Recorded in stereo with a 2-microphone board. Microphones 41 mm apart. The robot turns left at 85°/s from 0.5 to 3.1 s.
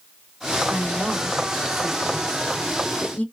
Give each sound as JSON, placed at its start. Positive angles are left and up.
{"t": 0.7, "sound": "a woman speaking", "azimuth_deg": -90, "distance_m": 1.9}